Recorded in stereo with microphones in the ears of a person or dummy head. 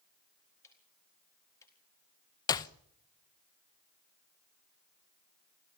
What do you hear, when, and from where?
0.6 s ticking: 15° left (ahead or behind), 4 m
2.5 s a clap: 25° left (ahead or behind), 0.9 m